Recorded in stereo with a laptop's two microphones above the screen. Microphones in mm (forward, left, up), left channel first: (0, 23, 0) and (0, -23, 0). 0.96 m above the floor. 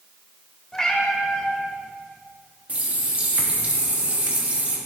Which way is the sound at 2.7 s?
30° right (ahead or behind).